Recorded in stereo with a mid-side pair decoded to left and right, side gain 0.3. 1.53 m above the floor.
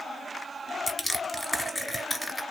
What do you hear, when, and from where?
0.9 s crushing: 20° left, 1.4 m